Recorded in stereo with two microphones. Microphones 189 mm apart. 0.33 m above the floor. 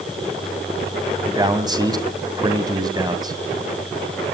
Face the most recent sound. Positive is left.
turn(degrees=-20)  # may be behind; listen again after turning